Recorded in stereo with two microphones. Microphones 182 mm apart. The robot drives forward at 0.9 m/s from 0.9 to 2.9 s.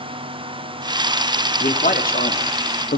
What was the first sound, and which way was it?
A man speaking, 45° left (ahead or behind).